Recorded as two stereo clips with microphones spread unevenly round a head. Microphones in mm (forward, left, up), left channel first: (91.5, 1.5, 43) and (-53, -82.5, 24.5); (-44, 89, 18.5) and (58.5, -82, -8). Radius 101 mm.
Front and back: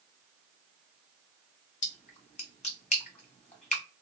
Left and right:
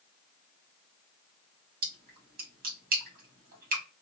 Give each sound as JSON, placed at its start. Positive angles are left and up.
{"t": 1.8, "sound": "a splash", "azimuth_deg": -15, "distance_m": 1.6}